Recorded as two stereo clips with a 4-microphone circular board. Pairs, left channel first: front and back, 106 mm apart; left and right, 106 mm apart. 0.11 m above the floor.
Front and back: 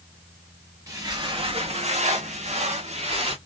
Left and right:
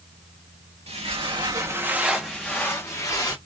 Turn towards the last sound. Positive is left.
turn(degrees=150)